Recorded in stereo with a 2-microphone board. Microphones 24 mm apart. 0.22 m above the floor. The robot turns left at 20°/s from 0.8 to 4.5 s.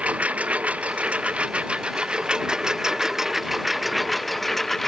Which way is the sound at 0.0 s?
115° right.